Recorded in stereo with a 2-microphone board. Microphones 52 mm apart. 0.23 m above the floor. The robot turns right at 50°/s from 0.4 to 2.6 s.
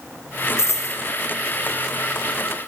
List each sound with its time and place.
0.6 s a dropped coin: 60° left (ahead or behind), 1.0 m; by 1.0 s 80° left, 1.0 m